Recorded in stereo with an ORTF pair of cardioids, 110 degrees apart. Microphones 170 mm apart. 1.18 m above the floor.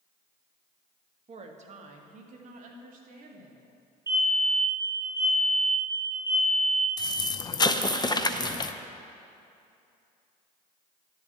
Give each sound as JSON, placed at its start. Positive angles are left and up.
{"t": 1.3, "sound": "a woman speaking", "azimuth_deg": -40, "distance_m": 1.8}
{"t": 4.1, "sound": "a fire alarm", "azimuth_deg": -20, "distance_m": 5.5}
{"t": 7.0, "sound": "an explosion", "azimuth_deg": 25, "distance_m": 0.7}